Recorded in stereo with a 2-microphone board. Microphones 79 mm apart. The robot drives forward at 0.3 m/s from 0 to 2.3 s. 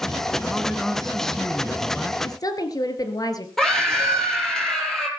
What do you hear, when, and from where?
0.4 s a man speaking: 5° left (ahead or behind), 2 m
2.2 s a woman speaking: 50° left (ahead or behind), 2.5 m
3.6 s a scream: 5° left (ahead or behind), 6 m